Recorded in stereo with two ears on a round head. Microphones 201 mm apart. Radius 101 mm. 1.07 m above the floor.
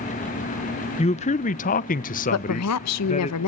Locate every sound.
1.0 s a man speaking: 25° left (ahead or behind), 0.7 m; by 3.3 s 30° left (ahead or behind), 1.2 m
2.3 s a woman speaking: 80° left, 0.7 m